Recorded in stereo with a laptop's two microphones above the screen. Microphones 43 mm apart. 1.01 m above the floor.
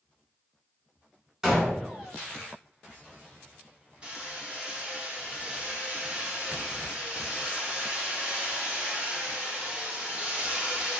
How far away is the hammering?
About 1.5 m.